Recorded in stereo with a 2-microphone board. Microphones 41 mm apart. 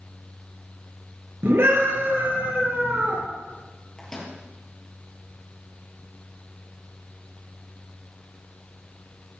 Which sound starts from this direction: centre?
A microwave, at 4.0 s.